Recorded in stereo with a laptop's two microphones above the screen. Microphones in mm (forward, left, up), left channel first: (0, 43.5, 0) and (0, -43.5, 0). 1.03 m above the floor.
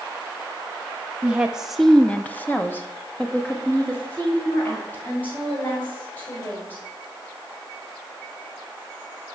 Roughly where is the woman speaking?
Centre.